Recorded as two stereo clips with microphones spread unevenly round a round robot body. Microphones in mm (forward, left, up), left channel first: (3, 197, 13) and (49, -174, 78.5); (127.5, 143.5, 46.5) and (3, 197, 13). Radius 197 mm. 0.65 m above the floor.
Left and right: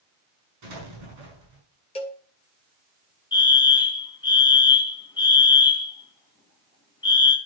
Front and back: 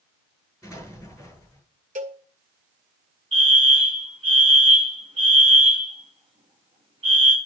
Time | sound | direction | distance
0.6 | an explosion | 115° right | 5 m
1.9 | a cowbell | 170° left | 2 m
3.3 | a fire alarm | 165° left | 2.5 m